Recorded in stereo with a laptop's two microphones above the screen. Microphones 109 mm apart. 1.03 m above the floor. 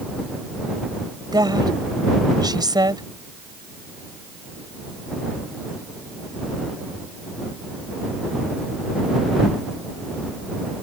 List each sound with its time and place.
1.3 s a woman speaking: 40° right (ahead or behind)